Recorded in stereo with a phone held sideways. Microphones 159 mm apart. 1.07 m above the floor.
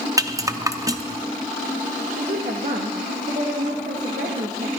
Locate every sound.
0.2 s a rattle: 20° right (ahead or behind), 0.5 m
2.1 s a woman speaking: 60° right (ahead or behind), 1.2 m